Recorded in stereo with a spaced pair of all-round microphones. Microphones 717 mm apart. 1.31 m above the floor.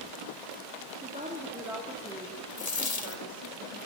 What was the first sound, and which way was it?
A woman speaking, 10° right (ahead or behind).